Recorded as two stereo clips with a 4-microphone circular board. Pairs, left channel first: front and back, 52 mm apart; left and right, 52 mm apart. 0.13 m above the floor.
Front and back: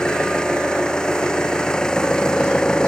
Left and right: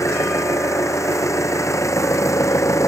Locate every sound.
0.0 s an engine running: 75° left